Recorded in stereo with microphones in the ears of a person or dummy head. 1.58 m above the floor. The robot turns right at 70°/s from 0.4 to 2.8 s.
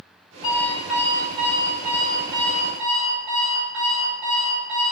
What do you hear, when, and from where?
0.4 s an alarm clock: 145° left, 1.7 m; by 4.9 s 50° right, 1.7 m